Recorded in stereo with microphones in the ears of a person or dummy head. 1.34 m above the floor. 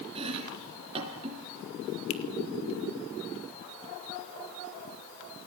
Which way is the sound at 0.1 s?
35° right (ahead or behind).